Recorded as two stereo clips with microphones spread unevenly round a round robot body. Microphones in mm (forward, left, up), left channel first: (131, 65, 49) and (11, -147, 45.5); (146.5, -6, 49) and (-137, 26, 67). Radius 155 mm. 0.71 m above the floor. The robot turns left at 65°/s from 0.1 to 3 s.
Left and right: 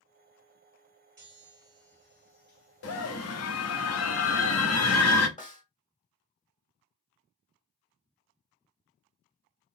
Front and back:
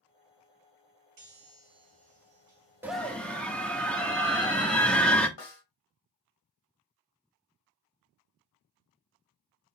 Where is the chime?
175° right, 2.5 m; by 3.8 s 65° left, 2.5 m.